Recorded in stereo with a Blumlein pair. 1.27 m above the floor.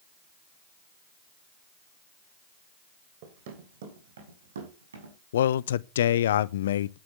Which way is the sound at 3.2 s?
50° right.